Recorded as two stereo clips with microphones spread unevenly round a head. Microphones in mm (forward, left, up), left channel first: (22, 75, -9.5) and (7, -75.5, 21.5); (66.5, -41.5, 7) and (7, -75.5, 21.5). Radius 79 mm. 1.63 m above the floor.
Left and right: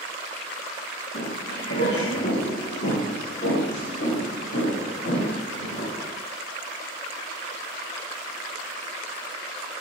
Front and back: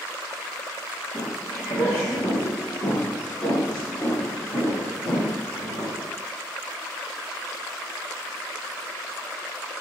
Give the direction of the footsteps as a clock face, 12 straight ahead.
9 o'clock.